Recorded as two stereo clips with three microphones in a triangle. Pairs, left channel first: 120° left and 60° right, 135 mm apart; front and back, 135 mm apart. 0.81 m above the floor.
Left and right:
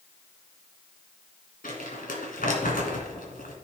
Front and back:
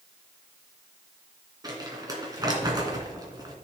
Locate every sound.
1.6 s crumpling: 120° left, 2 m